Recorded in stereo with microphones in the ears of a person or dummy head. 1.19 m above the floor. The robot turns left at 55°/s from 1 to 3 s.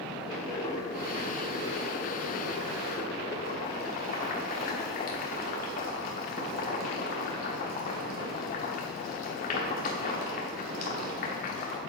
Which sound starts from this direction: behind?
Boiling, at 0.3 s.